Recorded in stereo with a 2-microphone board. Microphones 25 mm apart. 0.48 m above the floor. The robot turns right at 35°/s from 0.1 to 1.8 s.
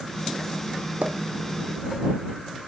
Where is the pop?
70° right (ahead or behind); by 1.2 s 80° right.